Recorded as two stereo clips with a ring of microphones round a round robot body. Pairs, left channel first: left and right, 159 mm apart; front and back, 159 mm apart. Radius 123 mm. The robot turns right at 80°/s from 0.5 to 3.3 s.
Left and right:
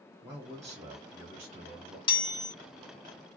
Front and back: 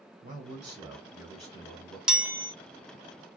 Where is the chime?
100° left, 0.7 m; by 2.5 s 135° left, 0.7 m.